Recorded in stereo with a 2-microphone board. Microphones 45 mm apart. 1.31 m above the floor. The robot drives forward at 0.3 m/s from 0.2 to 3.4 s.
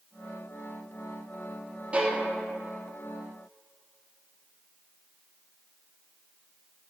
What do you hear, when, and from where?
1.9 s a violin: 25° right (ahead or behind), 0.6 m; by 2.2 s 30° right (ahead or behind), 0.5 m